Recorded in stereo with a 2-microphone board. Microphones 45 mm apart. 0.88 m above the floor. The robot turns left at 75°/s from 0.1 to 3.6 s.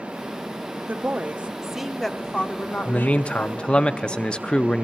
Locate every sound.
0.9 s a woman speaking: 100° right, 0.9 m; by 3.9 s 55° left, 0.9 m
2.9 s a man speaking: 30° left (ahead or behind), 0.6 m; by 4.8 s 20° left (ahead or behind), 0.6 m